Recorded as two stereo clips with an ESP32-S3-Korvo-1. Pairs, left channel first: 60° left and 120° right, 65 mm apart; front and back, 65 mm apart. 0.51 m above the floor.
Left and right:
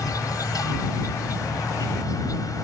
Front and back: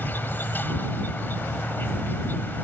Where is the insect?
55° left.